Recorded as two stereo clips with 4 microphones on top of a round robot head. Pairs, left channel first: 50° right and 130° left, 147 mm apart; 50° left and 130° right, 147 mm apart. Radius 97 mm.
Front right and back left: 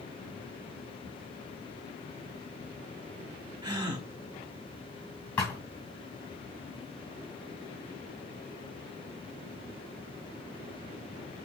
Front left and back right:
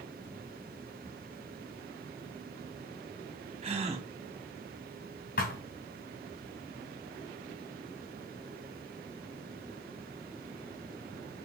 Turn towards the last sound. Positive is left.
turn(degrees=30)